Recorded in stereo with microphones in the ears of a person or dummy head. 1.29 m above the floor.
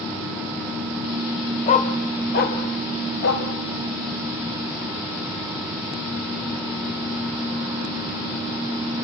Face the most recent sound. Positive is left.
turn(degrees=60)  # may be behind; listen again after turning